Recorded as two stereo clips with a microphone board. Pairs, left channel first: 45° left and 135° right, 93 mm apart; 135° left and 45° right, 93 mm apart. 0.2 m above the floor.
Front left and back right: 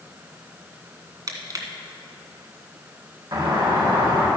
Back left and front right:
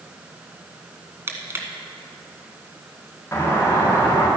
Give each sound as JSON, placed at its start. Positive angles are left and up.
{"t": 1.3, "sound": "crushing", "azimuth_deg": -100, "distance_m": 1.4}
{"t": 3.3, "sound": "a doorbell", "azimuth_deg": -165, "distance_m": 4.0}